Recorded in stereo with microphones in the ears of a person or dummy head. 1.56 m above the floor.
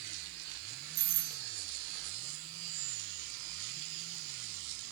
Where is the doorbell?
80° right, 2.5 m.